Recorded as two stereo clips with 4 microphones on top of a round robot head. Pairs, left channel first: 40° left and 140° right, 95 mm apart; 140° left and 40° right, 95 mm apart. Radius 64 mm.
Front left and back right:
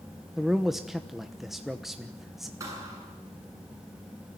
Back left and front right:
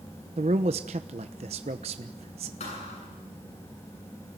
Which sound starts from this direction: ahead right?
A man speaking, at 0.4 s.